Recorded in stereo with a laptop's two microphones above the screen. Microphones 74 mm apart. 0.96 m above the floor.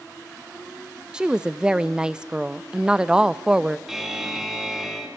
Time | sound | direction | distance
1.1 | a woman speaking | 10° right (ahead or behind) | 0.6 m
3.9 | a buzzer | 5° right (ahead or behind) | 2.5 m